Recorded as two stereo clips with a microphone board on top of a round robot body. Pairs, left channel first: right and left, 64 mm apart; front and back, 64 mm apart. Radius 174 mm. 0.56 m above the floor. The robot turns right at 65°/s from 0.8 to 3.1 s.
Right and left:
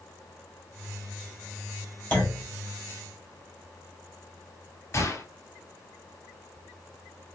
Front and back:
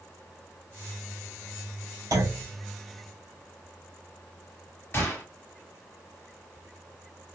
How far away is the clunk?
About 3 m.